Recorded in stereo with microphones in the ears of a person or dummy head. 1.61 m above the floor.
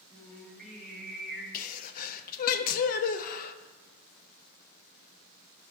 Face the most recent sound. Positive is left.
turn(degrees=50)  # may be behind; listen again after turning